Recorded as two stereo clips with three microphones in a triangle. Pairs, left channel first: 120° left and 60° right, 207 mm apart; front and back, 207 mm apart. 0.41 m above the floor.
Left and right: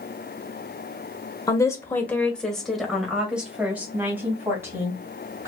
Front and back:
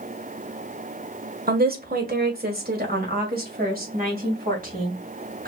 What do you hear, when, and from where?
1.5 s a woman speaking: 175° right, 1.1 m; by 5.5 s 135° right, 3 m